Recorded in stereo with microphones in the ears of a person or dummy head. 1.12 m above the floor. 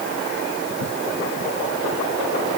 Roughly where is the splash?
I don't hear a splash.